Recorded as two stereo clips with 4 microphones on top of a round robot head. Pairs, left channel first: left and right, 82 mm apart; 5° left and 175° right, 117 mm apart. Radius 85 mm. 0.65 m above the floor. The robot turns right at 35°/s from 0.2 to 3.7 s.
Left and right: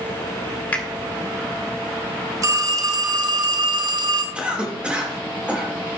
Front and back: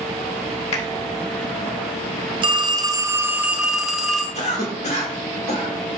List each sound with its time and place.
0.7 s a finger snap: 20° left, 2 m; by 0.8 s 25° left, 2 m
2.4 s a phone ringing: 135° right, 0.8 m; by 4.2 s 90° right, 0.8 m
4.3 s a cough: 15° right, 2.5 m